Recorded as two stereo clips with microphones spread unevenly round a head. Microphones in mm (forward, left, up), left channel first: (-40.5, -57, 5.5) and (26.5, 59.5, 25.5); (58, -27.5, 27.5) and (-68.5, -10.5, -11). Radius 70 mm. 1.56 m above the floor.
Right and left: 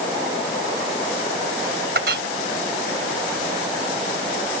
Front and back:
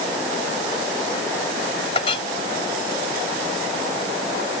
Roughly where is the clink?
Ahead left.